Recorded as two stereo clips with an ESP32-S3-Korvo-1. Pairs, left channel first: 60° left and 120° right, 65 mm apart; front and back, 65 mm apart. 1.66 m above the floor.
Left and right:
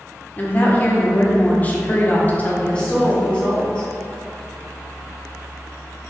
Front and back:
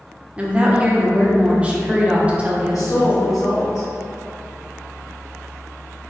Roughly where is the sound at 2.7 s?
Ahead.